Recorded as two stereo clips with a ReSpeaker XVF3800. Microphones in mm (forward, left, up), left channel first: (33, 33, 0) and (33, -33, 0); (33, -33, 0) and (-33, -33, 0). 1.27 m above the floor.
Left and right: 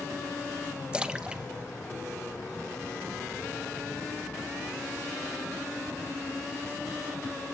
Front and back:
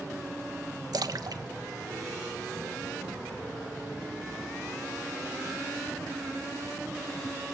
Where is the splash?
160° right, 1.3 m.